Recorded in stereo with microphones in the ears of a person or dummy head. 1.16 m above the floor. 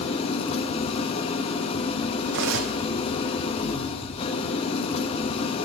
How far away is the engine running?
About 0.9 m.